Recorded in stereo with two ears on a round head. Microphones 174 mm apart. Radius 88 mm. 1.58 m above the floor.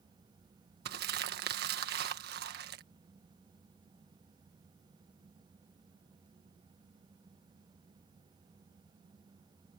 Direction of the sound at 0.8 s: 50° right (ahead or behind).